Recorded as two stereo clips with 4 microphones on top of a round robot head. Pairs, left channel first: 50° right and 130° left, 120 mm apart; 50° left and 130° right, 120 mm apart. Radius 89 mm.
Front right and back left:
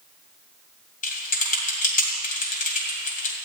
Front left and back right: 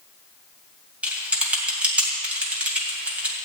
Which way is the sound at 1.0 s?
50° right.